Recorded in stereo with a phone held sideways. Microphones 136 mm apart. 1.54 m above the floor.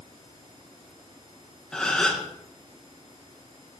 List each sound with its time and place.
1.7 s a gasp: 5° left (ahead or behind), 1.3 m